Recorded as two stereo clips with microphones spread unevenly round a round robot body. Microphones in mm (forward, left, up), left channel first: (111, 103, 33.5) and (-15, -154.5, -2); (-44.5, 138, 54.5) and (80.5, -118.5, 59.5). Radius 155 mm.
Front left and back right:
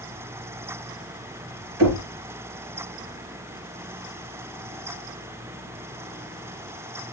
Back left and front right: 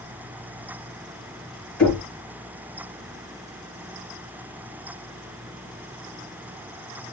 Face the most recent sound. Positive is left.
turn(degrees=-155)